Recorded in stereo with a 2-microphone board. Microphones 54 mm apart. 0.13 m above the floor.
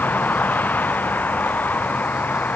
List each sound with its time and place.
0.0 s a vehicle: 35° left (ahead or behind)